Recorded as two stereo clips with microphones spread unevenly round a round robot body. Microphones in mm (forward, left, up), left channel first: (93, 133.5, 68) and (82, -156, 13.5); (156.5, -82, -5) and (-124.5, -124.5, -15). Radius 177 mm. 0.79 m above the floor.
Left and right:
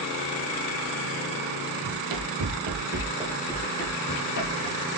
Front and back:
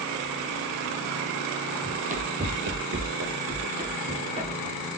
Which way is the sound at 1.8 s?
105° right.